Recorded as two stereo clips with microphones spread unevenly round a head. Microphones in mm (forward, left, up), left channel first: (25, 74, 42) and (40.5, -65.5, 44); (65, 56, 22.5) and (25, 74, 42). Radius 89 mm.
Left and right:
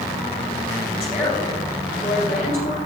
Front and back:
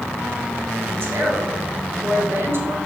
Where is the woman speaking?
135° left, 4.5 m.